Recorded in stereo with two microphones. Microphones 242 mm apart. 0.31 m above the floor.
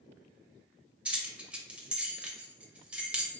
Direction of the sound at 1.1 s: 5° right (ahead or behind).